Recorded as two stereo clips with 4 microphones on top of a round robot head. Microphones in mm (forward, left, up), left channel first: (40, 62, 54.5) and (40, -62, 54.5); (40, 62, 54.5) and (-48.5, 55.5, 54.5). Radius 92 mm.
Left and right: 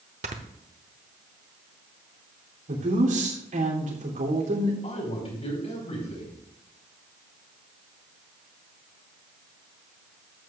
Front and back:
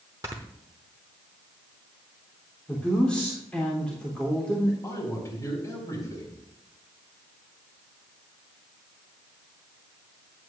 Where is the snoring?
110° right, 0.8 m.